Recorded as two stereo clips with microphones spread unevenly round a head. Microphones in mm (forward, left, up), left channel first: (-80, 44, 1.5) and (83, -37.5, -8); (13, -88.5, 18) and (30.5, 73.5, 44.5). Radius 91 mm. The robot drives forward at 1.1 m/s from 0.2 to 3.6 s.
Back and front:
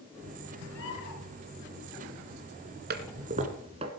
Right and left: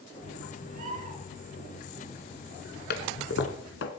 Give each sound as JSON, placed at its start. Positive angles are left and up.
{"t": 0.7, "sound": "a bird", "azimuth_deg": 130, "distance_m": 5.0}
{"t": 2.9, "sound": "a toilet flushing", "azimuth_deg": -65, "distance_m": 2.0}